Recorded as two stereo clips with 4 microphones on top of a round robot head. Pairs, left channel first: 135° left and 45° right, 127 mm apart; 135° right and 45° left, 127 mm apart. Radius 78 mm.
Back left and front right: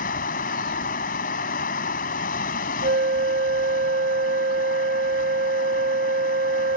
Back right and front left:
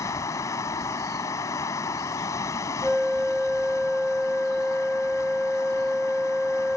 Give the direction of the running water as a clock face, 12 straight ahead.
7 o'clock.